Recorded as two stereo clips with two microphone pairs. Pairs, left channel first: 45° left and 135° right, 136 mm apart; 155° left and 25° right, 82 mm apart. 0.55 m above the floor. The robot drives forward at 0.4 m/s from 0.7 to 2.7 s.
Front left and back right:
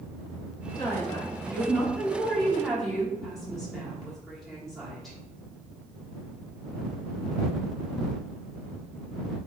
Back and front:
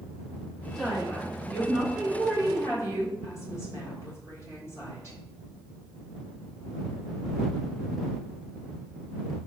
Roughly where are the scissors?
I don't hear scissors.